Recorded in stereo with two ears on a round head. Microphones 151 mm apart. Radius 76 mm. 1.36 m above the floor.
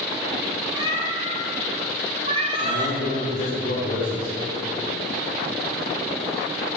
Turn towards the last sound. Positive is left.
turn(degrees=75)  # may be behind; listen again after turning